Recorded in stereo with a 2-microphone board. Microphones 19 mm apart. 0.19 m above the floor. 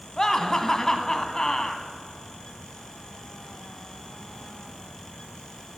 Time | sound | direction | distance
0.2 | laughter | 30° left (ahead or behind) | 1.4 m